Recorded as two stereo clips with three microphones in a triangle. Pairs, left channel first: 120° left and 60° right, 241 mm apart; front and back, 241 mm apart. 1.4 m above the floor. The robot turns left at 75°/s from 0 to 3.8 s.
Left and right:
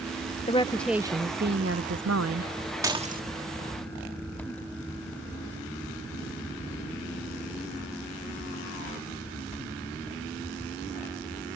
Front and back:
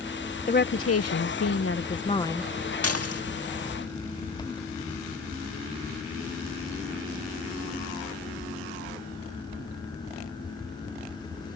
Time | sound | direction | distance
0.5 | a woman speaking | 60° left | ?
2.8 | dishes clattering | 15° left | ?